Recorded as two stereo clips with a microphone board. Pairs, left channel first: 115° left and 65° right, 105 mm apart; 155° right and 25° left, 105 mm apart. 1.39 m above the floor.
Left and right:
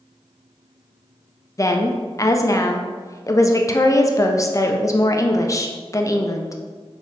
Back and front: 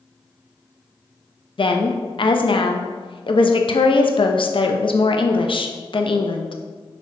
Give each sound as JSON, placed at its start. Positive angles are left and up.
{"t": 1.6, "sound": "a woman speaking", "azimuth_deg": 170, "distance_m": 0.5}